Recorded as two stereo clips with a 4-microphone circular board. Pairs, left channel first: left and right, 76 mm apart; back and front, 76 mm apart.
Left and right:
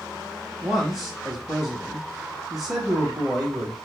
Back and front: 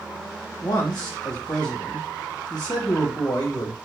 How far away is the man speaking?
About 2.5 m.